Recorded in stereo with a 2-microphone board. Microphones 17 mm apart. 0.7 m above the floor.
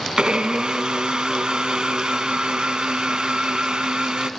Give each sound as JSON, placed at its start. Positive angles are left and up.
{"t": 0.2, "sound": "a blender", "side_deg": -55, "distance_m": 0.9}